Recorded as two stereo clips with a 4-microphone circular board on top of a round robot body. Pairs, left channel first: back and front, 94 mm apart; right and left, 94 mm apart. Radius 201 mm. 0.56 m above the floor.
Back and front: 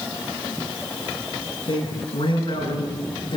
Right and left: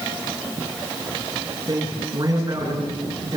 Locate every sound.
1.7 s a man speaking: 145° left, 9.5 m